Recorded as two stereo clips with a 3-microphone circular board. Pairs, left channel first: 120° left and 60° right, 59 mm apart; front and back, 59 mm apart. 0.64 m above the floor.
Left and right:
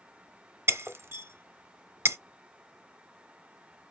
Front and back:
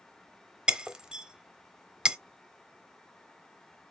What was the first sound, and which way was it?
Breaking glass, 105° right.